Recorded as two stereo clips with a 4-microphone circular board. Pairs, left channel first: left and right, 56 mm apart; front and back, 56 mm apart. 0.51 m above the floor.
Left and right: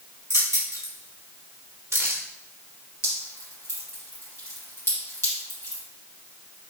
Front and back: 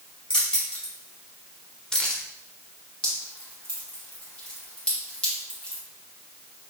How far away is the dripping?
About 1.8 m.